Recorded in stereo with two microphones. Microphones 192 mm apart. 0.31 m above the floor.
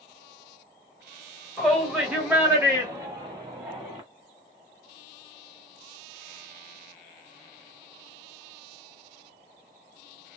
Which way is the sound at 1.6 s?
5° left (ahead or behind).